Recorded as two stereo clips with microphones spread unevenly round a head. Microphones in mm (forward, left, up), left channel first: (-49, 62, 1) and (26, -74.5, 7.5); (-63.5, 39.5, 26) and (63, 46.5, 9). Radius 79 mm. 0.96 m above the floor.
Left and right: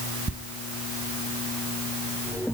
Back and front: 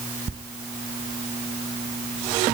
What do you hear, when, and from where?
0.3 s a squeak: 45° right, 1.4 m